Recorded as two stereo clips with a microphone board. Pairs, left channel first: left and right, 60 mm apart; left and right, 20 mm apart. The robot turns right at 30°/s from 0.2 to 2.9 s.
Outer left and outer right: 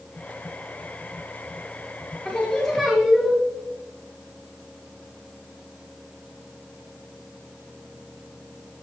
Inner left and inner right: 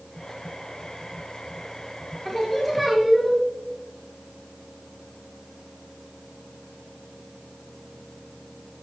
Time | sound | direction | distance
2.2 | singing | 20° left (ahead or behind) | 2 m